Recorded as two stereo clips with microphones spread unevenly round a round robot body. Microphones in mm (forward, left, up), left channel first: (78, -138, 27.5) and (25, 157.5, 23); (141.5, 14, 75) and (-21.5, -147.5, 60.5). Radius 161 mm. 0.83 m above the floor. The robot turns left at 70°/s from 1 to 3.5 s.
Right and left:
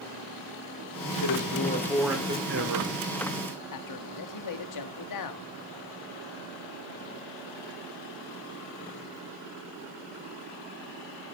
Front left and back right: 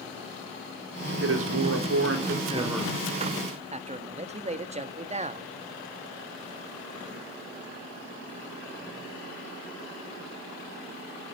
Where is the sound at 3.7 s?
80° right, 2 m.